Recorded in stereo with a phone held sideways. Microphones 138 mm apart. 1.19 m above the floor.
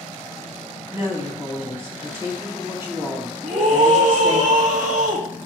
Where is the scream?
60° right (ahead or behind), 2.5 m.